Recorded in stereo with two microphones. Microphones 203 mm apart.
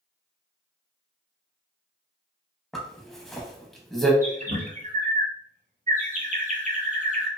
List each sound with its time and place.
2.7 s a zipper: centre (ahead or behind), 0.6 m
4.2 s a bird: 35° right (ahead or behind), 0.6 m